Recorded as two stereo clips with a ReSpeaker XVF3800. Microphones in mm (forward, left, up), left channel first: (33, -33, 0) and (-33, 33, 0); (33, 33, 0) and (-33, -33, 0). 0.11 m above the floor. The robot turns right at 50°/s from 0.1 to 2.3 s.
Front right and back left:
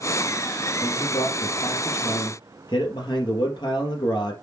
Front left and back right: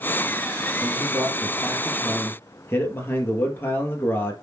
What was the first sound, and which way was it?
A man speaking, 95° right.